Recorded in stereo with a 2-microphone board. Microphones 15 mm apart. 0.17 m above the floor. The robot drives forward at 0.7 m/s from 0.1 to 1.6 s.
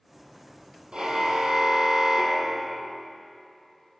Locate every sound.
0.9 s a car horn: 75° right (ahead or behind), 3.5 m; by 3.0 s 70° right (ahead or behind), 3.5 m